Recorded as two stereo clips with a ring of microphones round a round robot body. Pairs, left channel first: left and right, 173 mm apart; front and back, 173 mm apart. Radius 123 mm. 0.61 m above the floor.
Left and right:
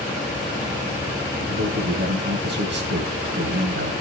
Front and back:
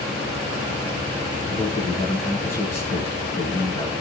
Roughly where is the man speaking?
Right.